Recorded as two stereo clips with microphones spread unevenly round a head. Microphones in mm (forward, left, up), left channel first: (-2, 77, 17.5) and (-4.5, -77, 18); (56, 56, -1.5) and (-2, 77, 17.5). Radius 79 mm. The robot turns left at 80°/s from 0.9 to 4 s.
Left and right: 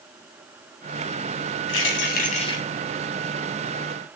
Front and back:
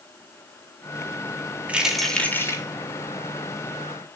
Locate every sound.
1.7 s keys jangling: 95° left, 3 m; by 2.6 s 20° left, 3 m